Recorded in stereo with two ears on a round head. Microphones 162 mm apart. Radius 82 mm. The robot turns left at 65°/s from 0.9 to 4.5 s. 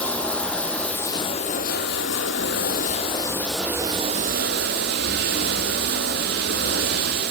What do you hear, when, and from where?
0.0 s running water: 175° left, 1.5 m; by 7.3 s 60° right, 1.5 m